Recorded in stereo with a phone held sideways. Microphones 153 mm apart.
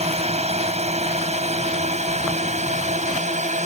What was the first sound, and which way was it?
A drone, 45° right (ahead or behind).